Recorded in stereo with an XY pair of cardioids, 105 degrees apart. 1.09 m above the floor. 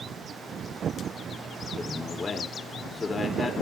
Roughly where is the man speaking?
Ahead left.